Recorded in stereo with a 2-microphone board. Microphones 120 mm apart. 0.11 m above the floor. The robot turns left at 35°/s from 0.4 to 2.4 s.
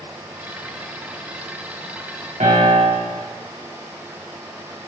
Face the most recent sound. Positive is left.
turn(degrees=-85)